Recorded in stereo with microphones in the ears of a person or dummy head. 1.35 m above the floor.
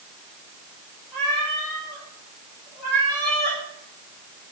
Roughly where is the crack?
No crack in this recording.